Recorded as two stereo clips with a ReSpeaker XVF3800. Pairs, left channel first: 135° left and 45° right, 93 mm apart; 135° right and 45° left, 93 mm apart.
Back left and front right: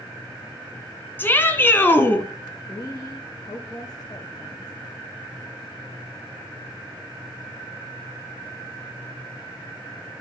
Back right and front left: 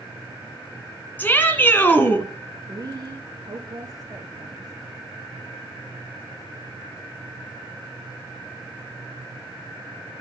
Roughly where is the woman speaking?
Left.